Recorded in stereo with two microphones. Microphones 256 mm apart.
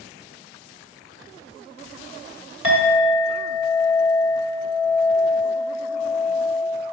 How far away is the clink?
About 1.2 m.